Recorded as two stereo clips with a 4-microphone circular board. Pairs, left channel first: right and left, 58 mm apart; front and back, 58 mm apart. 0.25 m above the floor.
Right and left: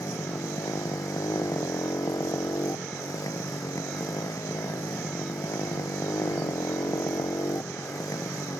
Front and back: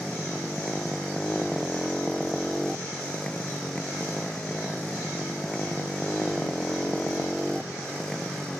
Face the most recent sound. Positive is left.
turn(degrees=-80)